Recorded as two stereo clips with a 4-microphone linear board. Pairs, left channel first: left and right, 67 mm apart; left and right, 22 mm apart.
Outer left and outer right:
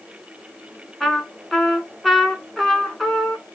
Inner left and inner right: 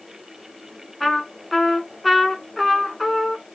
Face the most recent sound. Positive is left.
turn(degrees=5)  # may be behind; listen again after turning